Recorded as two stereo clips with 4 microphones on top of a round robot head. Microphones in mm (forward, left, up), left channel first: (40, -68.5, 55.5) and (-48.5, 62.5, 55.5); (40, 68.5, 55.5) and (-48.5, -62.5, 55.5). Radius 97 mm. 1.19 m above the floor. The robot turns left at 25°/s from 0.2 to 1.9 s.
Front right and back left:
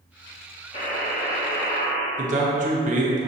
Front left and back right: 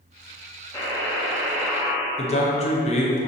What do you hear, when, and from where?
0.7 s a buzzer: 10° right, 0.7 m; by 2.1 s 40° right, 0.7 m
2.2 s a man speaking: 95° left, 1.0 m